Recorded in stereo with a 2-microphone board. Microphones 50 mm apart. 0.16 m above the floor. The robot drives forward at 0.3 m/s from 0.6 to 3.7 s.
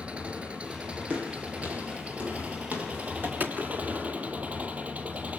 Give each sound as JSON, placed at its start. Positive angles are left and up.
{"t": 0.0, "sound": "an engine running", "side_deg": -25, "distance_m": 4.5}
{"t": 1.1, "sound": "footsteps", "side_deg": -30, "distance_m": 6.0}
{"t": 3.4, "sound": "a gunshot", "side_deg": -35, "distance_m": 1.8}